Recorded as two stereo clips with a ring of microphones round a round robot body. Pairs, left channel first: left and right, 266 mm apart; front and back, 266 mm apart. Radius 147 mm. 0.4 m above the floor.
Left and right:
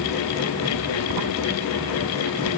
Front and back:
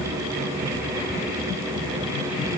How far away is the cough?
No cough in this recording.